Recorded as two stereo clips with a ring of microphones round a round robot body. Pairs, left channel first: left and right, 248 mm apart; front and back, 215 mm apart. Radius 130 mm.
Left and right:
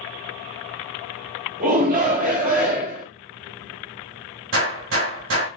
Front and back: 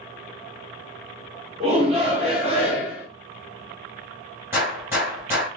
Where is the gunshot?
100° right, 2 m.